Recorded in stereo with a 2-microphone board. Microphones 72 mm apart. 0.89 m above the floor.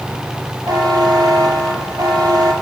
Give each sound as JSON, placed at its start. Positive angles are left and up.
{"t": 0.7, "sound": "a buzzer", "side_deg": -70, "distance_m": 2.5}